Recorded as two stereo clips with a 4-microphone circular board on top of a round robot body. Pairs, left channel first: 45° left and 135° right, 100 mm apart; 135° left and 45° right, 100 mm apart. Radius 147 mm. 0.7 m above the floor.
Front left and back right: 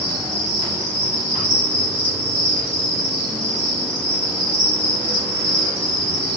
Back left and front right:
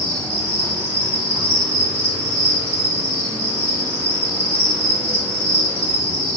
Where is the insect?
40° right, 2.5 m.